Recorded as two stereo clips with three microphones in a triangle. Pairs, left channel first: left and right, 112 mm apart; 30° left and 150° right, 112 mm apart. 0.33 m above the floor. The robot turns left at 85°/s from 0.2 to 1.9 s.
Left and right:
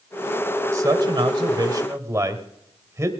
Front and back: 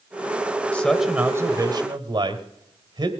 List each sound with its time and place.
0.7 s a man speaking: 45° right, 1.5 m; by 3.1 s 145° right, 1.5 m